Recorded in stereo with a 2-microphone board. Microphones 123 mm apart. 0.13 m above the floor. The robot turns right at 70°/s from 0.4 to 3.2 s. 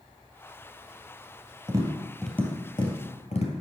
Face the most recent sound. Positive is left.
turn(degrees=60)  # may be behind; listen again after turning